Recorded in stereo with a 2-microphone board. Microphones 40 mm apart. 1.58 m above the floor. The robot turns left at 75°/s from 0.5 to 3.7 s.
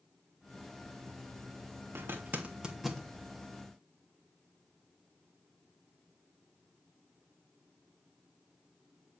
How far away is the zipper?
About 3 m.